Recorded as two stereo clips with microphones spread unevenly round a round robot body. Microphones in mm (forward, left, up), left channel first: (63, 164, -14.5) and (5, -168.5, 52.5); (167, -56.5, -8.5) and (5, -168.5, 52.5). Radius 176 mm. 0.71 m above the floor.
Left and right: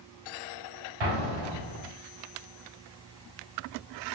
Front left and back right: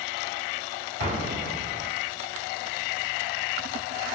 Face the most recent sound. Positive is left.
turn(degrees=-90)